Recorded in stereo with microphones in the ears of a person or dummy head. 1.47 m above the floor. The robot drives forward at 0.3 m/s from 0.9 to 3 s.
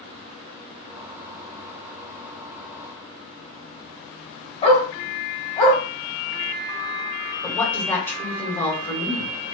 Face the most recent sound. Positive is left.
turn(degrees=10)  # may be behind; listen again after turning